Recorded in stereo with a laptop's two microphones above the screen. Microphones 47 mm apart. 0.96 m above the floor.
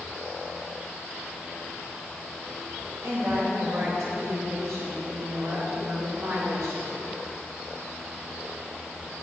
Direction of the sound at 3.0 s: 85° right.